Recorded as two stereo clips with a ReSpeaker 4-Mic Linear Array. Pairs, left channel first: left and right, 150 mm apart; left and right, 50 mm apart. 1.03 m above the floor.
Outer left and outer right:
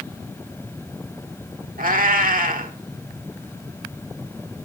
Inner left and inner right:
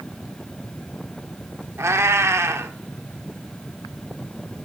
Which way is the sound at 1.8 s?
60° right (ahead or behind).